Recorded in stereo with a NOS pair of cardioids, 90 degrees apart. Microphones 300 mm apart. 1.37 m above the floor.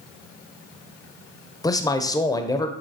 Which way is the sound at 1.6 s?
10° left.